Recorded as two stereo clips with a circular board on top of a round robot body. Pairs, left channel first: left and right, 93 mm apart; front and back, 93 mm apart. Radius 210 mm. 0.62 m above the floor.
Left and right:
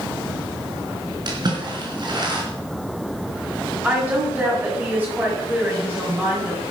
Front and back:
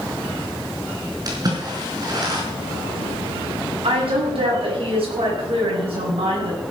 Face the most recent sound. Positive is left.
turn(degrees=-160)